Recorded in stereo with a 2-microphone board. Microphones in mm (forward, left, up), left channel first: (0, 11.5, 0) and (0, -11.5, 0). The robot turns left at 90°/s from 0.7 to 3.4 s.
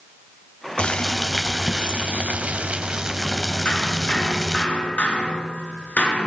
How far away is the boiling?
About 3 m.